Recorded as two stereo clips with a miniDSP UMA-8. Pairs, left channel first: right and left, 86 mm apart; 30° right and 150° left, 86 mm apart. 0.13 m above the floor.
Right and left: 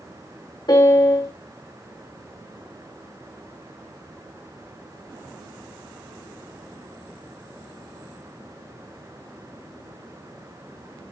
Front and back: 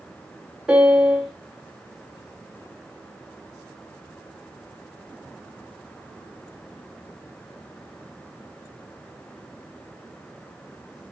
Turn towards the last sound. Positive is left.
turn(degrees=-125)